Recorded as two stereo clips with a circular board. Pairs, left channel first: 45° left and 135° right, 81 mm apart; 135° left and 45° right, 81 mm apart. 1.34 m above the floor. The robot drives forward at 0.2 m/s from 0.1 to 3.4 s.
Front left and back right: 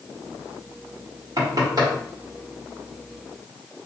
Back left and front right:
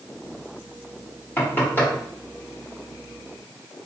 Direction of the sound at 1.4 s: 165° right.